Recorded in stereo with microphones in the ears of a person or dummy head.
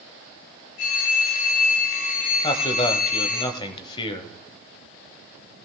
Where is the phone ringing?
50° left (ahead or behind), 2.5 m.